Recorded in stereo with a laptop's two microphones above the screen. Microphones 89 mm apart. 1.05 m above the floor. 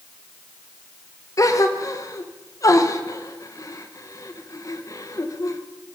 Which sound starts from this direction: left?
A gasp, at 1.4 s.